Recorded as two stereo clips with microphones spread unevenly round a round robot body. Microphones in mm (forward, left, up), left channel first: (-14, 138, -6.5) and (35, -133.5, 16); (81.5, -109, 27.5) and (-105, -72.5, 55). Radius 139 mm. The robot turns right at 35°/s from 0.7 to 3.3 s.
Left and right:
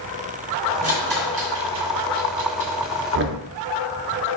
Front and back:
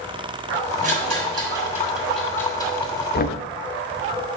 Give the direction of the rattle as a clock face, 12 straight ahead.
5 o'clock.